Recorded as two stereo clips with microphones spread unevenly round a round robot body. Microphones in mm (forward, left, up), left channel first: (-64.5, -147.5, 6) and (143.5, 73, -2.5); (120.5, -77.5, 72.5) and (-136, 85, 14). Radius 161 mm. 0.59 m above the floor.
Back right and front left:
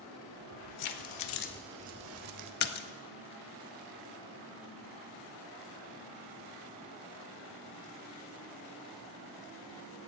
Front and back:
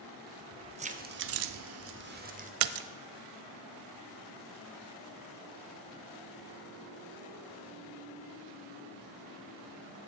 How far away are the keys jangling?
About 1.7 m.